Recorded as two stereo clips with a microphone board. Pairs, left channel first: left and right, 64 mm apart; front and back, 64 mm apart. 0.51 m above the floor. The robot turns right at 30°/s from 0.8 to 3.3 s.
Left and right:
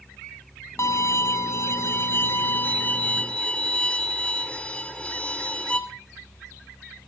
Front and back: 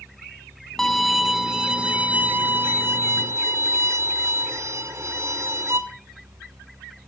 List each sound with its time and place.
0.8 s a violin: 80° left, 1.9 m; by 5.8 s 155° left, 1.9 m